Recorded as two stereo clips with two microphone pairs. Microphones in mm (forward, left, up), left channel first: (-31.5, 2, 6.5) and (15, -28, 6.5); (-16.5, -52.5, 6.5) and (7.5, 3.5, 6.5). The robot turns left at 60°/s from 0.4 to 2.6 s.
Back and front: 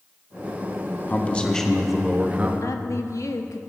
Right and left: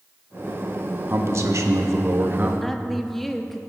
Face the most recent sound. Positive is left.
turn(degrees=160)